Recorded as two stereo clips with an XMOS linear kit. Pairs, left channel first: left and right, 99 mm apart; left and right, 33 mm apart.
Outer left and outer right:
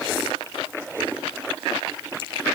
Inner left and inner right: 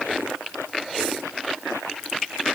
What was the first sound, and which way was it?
Only background noise.